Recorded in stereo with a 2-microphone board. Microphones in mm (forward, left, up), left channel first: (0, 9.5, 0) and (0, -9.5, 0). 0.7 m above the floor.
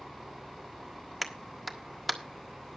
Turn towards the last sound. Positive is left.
turn(degrees=-5)  # may be behind; listen again after turning